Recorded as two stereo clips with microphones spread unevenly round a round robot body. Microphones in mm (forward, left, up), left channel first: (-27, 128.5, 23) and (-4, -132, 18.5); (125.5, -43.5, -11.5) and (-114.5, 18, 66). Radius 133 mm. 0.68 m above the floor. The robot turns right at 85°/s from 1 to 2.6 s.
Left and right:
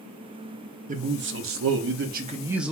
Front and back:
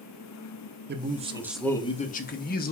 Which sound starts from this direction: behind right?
A man speaking, at 0.9 s.